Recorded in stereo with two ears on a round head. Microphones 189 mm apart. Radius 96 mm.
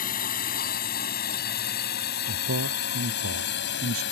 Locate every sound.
0.0 s a drone: 40° left (ahead or behind); by 4.1 s 55° left (ahead or behind)
2.3 s a man speaking: 70° right (ahead or behind)